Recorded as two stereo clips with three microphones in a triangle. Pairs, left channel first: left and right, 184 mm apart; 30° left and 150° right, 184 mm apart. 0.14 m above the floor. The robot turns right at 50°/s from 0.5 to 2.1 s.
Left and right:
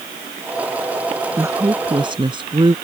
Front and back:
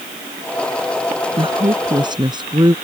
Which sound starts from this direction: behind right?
A woman speaking, at 1.4 s.